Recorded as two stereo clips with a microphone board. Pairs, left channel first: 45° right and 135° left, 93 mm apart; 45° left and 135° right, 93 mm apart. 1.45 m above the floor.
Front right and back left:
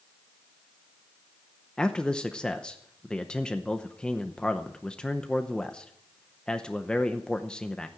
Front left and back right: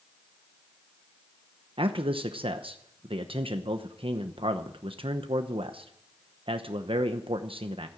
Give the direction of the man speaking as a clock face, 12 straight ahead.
4 o'clock.